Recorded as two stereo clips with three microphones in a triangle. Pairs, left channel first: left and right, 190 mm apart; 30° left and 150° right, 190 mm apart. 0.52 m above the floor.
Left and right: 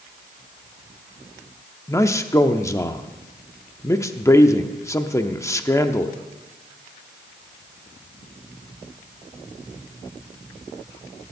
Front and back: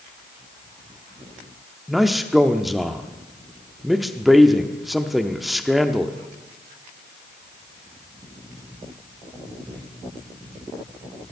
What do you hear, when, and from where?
1.9 s a man speaking: 120° left, 0.7 m